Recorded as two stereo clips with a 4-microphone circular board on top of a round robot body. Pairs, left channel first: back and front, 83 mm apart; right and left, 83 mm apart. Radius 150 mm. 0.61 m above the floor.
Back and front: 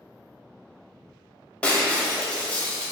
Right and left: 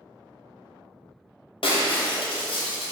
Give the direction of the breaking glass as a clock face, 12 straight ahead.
3 o'clock.